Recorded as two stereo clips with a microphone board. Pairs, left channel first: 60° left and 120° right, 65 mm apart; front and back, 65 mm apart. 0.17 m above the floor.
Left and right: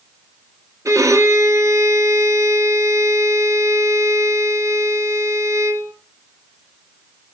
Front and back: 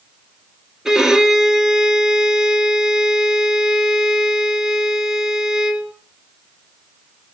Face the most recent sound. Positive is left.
turn(degrees=-100)